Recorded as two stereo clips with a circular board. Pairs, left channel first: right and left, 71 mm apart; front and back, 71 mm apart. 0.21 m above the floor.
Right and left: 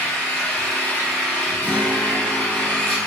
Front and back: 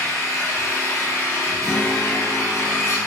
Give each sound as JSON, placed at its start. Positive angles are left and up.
{"t": 0.0, "sound": "an engine running", "azimuth_deg": -20, "distance_m": 1.5}
{"t": 1.6, "sound": "a guitar", "azimuth_deg": 105, "distance_m": 1.4}